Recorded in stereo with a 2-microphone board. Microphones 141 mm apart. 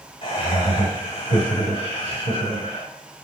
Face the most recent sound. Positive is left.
turn(degrees=40)  # may be behind; listen again after turning